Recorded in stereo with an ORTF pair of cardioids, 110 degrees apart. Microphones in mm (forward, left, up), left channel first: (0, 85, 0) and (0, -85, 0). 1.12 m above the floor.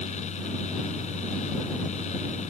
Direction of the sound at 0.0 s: 40° left.